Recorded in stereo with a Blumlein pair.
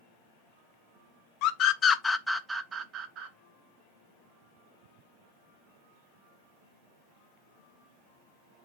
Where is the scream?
40° left, 1.0 m; by 3.3 s 40° right, 1.2 m.